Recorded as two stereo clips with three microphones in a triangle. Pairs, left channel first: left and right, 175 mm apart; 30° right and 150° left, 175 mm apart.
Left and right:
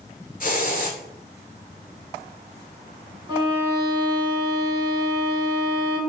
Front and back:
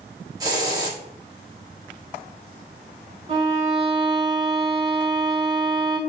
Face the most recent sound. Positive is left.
turn(degrees=-155)